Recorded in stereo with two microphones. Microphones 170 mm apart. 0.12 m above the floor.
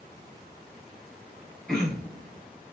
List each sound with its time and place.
1.7 s throat clearing: 5° left (ahead or behind), 1.0 m